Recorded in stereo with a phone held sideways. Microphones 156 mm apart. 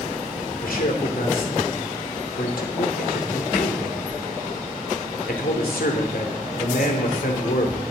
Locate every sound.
0.6 s a man speaking: 80° left, 2.5 m